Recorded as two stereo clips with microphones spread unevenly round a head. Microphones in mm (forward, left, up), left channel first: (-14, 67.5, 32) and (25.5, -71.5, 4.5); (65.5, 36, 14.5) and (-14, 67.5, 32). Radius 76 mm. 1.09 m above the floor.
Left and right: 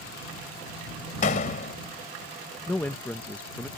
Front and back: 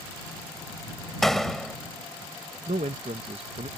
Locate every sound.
1.2 s a door slam: 70° left
2.7 s a man speaking: 170° right